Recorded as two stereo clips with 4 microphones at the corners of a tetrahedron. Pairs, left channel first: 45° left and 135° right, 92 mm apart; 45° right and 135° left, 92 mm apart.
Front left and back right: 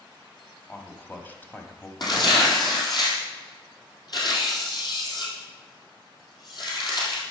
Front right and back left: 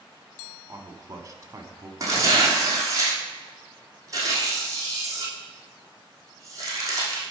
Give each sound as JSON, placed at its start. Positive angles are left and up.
{"t": 0.7, "sound": "a man speaking", "azimuth_deg": 105, "distance_m": 1.3}
{"t": 2.0, "sound": "tearing paper", "azimuth_deg": 85, "distance_m": 3.0}